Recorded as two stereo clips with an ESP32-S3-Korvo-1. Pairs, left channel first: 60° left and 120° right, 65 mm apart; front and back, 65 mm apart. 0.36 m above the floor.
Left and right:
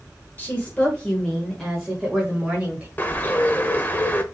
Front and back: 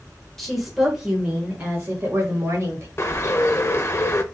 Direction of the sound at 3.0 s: 10° left.